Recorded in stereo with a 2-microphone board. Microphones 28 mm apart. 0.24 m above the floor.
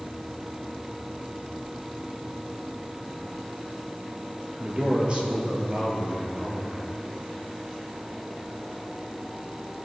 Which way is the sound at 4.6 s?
40° right (ahead or behind).